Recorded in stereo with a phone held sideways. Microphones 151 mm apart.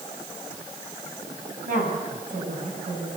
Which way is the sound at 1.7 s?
60° right (ahead or behind).